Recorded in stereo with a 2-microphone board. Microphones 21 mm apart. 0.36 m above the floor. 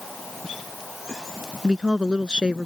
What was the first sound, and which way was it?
A woman speaking, 40° right (ahead or behind).